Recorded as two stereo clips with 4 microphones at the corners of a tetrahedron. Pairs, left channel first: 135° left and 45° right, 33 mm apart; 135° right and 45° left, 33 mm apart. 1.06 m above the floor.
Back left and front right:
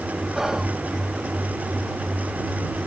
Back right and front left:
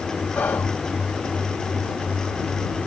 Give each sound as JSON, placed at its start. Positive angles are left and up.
{"t": 0.3, "sound": "whispering", "azimuth_deg": -120}